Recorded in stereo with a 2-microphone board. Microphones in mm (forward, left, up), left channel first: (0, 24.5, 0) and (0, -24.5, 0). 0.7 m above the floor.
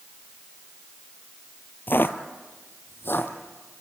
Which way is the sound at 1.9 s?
45° left (ahead or behind).